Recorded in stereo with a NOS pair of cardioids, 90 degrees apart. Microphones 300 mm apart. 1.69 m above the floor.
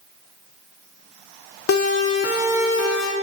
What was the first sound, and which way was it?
A siren, 50° left.